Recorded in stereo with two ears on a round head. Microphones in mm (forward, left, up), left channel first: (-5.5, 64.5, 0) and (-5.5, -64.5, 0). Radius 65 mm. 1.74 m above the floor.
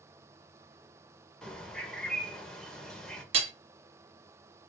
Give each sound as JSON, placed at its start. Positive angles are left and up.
{"t": 1.4, "sound": "a bird", "side_deg": 5, "distance_m": 2.0}
{"t": 3.3, "sound": "hammering", "side_deg": -45, "distance_m": 1.2}